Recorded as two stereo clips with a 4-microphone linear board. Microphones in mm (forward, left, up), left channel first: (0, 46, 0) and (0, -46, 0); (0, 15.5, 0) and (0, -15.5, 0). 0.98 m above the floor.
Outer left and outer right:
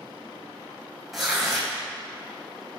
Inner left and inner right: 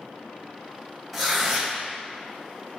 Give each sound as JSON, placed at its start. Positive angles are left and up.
{"t": 1.1, "sound": "tearing paper", "side_deg": 0, "distance_m": 2.5}